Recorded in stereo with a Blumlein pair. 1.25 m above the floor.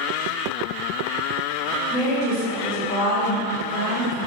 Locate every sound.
1.9 s a woman speaking: 40° left, 1.3 m